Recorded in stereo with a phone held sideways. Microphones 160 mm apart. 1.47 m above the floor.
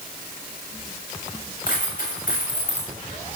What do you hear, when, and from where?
1.7 s a dropped coin: 65° left (ahead or behind), 6.5 m